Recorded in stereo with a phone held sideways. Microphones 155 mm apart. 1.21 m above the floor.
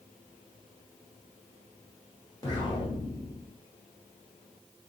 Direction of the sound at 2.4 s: 25° left (ahead or behind).